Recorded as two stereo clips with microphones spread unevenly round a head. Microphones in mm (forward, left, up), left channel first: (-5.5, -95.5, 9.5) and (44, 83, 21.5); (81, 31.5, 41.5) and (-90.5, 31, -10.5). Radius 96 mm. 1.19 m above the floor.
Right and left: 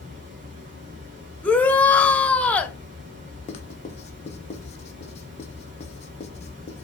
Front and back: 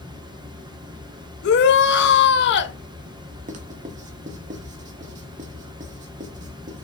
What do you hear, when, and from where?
0.0 s running water: 110° left, 1.6 m
1.4 s a shout: 25° right, 0.9 m
3.5 s writing: 155° right, 1.0 m